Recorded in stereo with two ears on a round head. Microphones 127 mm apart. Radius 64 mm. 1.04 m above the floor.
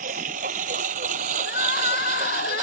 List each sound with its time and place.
0.0 s a lawn mower: 65° right (ahead or behind); by 2.6 s 60° right (ahead or behind)
1.4 s crying: 80° left